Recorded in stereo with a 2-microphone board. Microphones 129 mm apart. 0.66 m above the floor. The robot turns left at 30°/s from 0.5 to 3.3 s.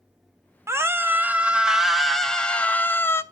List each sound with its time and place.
0.7 s a scream: 140° right, 0.5 m; by 3.2 s 145° left, 0.5 m